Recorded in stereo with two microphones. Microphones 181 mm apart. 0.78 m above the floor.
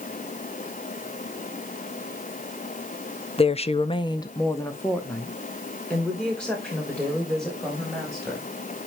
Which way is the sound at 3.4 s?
30° left (ahead or behind).